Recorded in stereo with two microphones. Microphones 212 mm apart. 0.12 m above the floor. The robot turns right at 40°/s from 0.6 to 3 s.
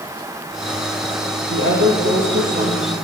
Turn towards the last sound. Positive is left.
turn(degrees=-45)